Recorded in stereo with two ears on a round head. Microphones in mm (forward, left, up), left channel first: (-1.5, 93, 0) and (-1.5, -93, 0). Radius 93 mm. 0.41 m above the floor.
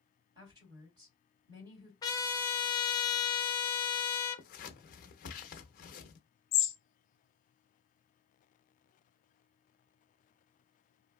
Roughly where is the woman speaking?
Centre.